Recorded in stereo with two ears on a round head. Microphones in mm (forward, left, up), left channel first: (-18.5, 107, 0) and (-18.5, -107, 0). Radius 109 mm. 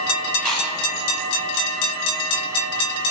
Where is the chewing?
Centre (ahead or behind), 0.8 m.